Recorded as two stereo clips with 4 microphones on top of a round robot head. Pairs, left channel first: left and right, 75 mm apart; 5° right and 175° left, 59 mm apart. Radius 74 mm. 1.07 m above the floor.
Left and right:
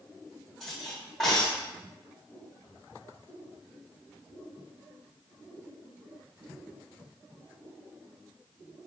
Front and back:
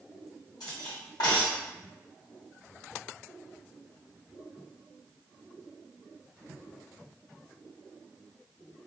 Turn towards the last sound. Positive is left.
turn(degrees=0)